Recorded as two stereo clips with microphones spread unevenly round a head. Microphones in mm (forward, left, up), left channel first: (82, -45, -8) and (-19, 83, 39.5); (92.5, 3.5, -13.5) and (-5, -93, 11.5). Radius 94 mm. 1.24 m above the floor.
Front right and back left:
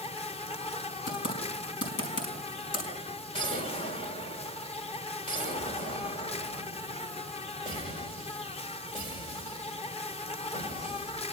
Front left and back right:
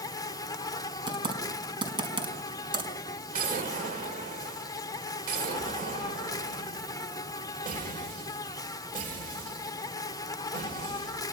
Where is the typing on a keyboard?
85° right, 5 m.